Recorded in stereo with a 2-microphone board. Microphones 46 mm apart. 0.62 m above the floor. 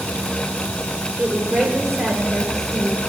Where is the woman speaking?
10° right (ahead or behind), 1.8 m.